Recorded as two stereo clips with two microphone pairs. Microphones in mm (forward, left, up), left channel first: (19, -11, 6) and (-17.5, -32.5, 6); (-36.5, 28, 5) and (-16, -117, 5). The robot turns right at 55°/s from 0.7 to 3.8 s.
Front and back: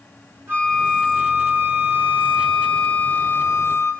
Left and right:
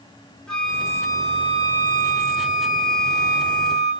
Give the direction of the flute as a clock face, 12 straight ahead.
6 o'clock.